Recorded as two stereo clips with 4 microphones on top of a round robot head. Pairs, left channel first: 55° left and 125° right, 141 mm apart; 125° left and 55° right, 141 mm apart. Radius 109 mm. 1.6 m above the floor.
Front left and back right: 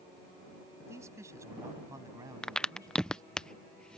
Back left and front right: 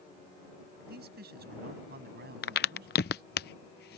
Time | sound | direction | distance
0.8 | a man speaking | 55° right | ?
2.4 | a crack | 135° left | ?